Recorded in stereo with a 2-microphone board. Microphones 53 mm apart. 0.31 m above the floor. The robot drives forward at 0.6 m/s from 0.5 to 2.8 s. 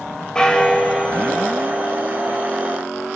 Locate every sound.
0.3 s a bell: 15° left (ahead or behind), 1.3 m; by 2.0 s 10° left (ahead or behind), 2.0 m